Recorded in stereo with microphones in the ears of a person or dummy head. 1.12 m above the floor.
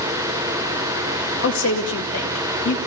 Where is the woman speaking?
75° left (ahead or behind), 1.6 m.